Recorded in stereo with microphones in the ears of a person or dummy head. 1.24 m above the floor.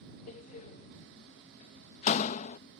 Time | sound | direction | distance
0.3 | a door slam | 35° left (ahead or behind) | ?